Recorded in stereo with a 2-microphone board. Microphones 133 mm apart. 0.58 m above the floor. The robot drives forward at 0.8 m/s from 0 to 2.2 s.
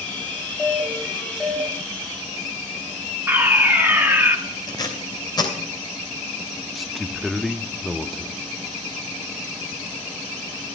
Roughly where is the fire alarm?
Centre.